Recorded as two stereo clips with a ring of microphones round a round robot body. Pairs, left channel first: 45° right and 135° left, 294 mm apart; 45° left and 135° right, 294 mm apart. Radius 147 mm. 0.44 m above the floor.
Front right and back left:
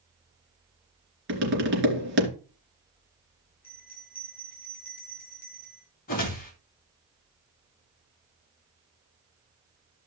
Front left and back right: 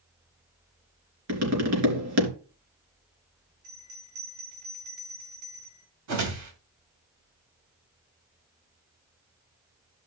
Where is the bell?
105° right, 5 m.